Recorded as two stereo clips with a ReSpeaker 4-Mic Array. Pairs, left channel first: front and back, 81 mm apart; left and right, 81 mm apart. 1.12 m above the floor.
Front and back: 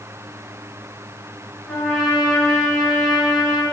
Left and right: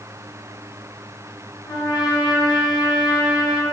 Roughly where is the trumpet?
Left.